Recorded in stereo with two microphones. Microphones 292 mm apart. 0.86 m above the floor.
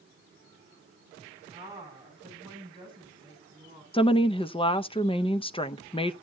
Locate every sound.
1.5 s a woman speaking: 10° right (ahead or behind), 6.5 m; by 3.8 s 20° right (ahead or behind), 7.5 m
3.9 s a woman speaking: 20° left (ahead or behind), 0.5 m